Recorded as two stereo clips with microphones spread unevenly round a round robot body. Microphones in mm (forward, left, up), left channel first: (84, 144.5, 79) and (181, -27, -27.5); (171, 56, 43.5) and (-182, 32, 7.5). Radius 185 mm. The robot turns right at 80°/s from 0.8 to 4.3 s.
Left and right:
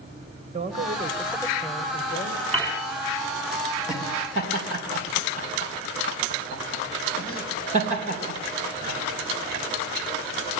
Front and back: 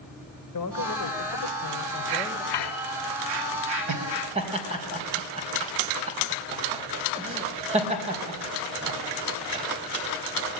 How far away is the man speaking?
About 3 m.